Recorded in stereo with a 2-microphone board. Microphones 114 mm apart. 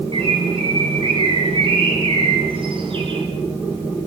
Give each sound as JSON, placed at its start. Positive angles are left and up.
{"t": 0.1, "sound": "a bird", "side_deg": -55, "distance_m": 7.5}